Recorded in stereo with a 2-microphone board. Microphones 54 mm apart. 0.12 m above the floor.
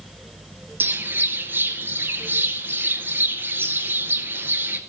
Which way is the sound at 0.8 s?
40° right (ahead or behind).